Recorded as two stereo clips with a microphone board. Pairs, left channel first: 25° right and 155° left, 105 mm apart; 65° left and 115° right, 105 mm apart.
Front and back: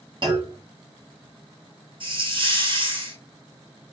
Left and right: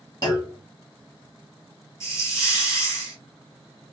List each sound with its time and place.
0.2 s a clunk: 115° left, 2 m
2.0 s a hiss: 125° left, 3.5 m